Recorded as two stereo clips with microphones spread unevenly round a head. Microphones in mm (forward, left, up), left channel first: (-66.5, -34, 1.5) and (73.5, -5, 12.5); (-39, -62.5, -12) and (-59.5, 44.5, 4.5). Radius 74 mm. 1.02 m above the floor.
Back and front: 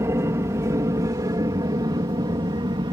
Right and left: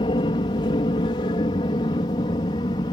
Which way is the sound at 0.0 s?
55° right.